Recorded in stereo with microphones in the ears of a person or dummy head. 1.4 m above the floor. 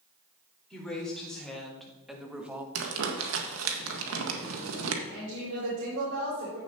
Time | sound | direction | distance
0.7 | a woman speaking | 5° left (ahead or behind) | 4 m
2.8 | crumpling | 80° right | 1.3 m
5.1 | a woman speaking | 70° right (ahead or behind) | 4.5 m